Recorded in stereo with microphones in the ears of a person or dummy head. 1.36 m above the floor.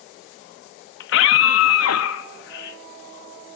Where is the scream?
65° left (ahead or behind), 1.7 m; by 2.8 s 60° left (ahead or behind), 2.5 m.